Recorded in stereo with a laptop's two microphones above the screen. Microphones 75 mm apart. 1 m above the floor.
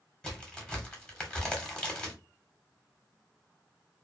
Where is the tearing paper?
No tearing paper in this recording.